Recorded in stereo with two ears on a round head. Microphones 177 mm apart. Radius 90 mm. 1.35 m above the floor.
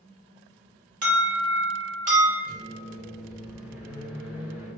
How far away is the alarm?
About 1.5 m.